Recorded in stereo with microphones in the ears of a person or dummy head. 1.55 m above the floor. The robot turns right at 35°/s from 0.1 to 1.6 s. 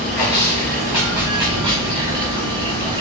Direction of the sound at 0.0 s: 175° left.